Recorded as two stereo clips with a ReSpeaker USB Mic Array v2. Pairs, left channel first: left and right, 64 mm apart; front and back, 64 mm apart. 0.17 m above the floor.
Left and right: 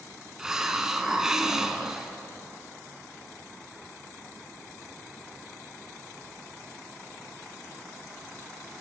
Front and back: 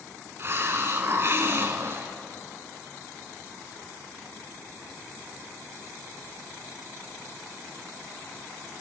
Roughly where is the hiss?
Behind.